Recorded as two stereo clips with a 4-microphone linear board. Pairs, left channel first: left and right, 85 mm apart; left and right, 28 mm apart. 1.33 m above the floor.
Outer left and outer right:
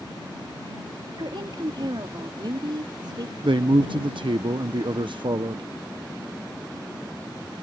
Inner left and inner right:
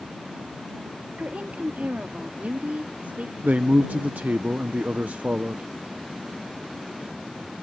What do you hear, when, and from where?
1.2 s a woman speaking: 70° right (ahead or behind); by 3.3 s 60° right (ahead or behind)
3.4 s a man speaking: 75° right (ahead or behind)